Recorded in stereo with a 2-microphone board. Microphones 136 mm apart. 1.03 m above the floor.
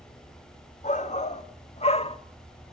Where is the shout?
60° left (ahead or behind), 2 m; by 2.2 s 45° left (ahead or behind), 1.1 m.